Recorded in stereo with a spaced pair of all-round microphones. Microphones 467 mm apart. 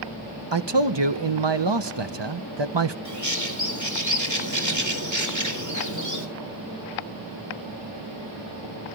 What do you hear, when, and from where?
0.5 s a man speaking: 60° right (ahead or behind), 1.1 m
3.0 s a bird: 35° right (ahead or behind), 4 m